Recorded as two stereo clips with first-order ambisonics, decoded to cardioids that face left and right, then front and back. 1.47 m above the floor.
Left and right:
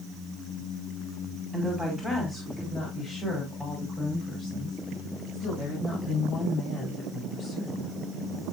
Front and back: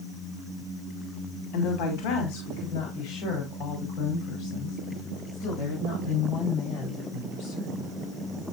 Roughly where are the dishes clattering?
No dishes clattering in this recording.